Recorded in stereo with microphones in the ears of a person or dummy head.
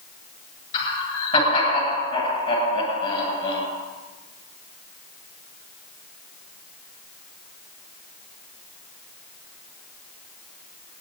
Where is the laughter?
30° left (ahead or behind), 8 m.